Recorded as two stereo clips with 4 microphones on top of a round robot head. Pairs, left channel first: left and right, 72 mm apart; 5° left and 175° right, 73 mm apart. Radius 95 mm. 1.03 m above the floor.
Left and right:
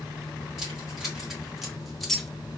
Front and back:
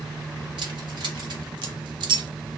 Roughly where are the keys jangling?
Behind.